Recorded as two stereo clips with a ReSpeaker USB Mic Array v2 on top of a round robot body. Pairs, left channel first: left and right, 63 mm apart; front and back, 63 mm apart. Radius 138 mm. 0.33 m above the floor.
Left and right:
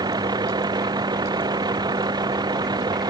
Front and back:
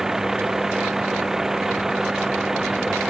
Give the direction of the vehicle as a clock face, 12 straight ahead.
3 o'clock.